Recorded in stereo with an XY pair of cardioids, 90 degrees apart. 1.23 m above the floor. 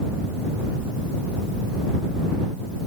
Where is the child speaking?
No child speaking in this recording.